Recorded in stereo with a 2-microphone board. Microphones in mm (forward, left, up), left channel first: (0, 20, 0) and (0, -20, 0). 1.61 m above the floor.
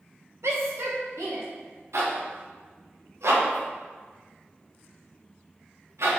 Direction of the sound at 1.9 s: 80° right.